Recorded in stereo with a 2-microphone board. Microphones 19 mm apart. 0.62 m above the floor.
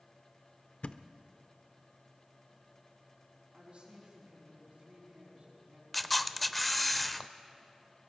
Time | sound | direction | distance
0.8 | a thud | 70° left (ahead or behind) | 0.5 m
3.5 | a woman speaking | 65° right (ahead or behind) | 5.5 m
5.9 | a camera shutter | 5° left (ahead or behind) | 0.5 m